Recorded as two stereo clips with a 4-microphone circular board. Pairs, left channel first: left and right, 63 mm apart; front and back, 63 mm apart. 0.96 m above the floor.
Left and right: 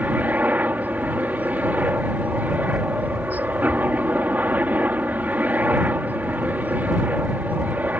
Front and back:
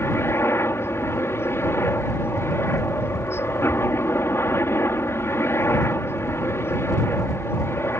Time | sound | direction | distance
0.0 | a helicopter | 35° right | ?